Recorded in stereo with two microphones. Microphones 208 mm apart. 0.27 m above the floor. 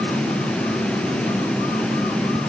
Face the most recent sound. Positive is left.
No sound to turn to.